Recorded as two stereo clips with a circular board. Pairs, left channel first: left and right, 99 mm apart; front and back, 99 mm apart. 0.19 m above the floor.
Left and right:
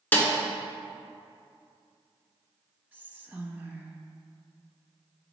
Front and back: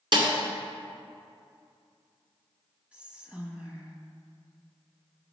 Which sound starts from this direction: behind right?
Whispering, at 2.9 s.